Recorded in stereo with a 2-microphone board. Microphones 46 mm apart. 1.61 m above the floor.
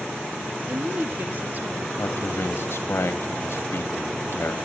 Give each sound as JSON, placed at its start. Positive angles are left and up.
{"t": 0.7, "sound": "a woman speaking", "side_deg": -40, "distance_m": 1.5}
{"t": 2.0, "sound": "a man speaking", "side_deg": 60, "distance_m": 2.5}